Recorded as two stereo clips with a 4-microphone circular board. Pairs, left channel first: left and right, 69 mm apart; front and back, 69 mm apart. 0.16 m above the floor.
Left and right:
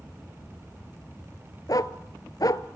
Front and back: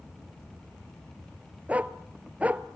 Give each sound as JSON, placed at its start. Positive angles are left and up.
{"t": 1.7, "sound": "a dog barking", "azimuth_deg": 110, "distance_m": 0.8}